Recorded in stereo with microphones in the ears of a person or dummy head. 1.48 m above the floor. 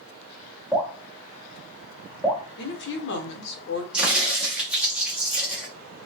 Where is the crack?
5° right (ahead or behind), 1.2 m.